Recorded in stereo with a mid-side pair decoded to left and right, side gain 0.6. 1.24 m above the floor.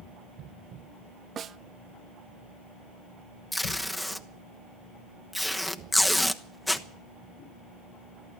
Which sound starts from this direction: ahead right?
A snare drum, at 1.4 s.